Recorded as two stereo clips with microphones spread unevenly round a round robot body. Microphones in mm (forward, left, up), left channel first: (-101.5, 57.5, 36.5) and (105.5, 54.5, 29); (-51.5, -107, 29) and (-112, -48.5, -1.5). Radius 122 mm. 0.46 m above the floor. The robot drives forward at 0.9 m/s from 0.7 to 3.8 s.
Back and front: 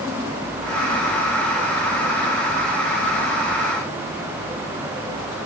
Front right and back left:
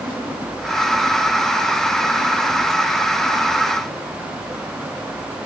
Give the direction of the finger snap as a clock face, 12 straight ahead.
I don't hear a finger snap.